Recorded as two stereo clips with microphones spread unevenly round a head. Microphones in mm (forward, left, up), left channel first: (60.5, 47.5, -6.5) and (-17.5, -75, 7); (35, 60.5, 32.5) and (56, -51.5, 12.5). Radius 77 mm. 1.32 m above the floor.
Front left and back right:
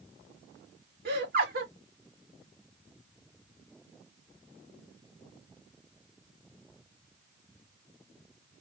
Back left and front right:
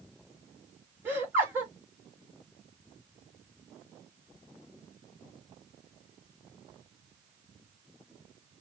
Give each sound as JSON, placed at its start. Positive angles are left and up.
{"t": 1.1, "sound": "laughter", "azimuth_deg": -155, "distance_m": 2.5}